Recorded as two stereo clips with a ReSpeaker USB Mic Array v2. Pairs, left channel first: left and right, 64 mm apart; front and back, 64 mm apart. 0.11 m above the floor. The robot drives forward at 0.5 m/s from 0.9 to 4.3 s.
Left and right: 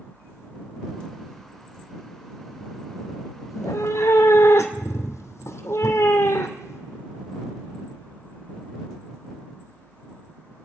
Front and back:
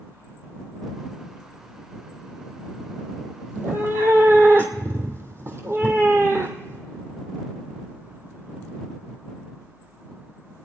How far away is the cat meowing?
About 1.9 m.